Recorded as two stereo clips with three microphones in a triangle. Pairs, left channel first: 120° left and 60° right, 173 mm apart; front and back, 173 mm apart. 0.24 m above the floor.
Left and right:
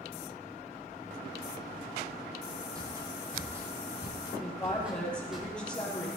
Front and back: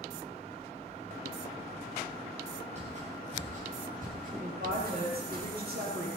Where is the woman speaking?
155° right, 6.5 m.